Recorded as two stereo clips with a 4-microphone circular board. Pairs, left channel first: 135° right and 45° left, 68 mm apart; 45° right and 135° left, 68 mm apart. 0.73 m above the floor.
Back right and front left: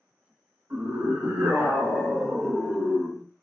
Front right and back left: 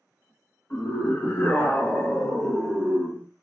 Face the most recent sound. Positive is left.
turn(degrees=-170)